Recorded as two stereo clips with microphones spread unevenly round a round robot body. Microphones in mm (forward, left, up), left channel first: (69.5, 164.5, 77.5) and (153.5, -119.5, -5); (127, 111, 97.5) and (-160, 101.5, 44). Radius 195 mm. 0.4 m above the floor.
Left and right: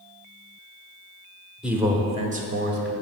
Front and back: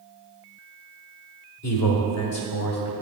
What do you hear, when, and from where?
1.6 s a man speaking: 5° right, 1.0 m; by 2.9 s 40° right, 1.5 m